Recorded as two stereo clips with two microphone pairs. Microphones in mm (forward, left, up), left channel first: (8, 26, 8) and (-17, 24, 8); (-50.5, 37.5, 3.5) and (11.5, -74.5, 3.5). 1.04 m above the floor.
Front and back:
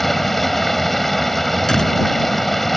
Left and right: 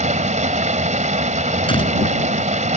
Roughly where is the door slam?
Left.